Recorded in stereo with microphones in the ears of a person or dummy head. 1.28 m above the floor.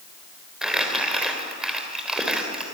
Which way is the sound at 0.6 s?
5° right (ahead or behind).